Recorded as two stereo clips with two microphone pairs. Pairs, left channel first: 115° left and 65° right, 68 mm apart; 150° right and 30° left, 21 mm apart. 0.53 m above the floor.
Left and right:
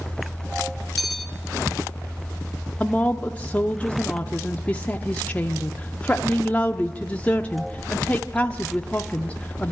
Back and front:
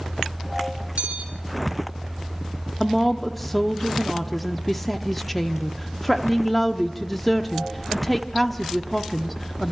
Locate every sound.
1.0 s a bell: 25° left, 1.7 m
2.8 s a woman speaking: 135° left, 0.7 m